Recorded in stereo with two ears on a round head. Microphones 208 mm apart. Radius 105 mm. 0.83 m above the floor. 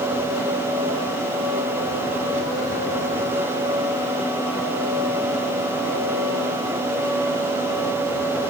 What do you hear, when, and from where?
Only background noise.